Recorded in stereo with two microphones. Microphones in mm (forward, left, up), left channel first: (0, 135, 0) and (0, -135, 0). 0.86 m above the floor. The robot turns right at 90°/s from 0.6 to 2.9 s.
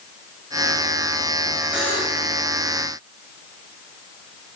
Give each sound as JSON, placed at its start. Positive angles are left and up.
{"t": 1.7, "sound": "a buzzer", "azimuth_deg": -5, "distance_m": 6.5}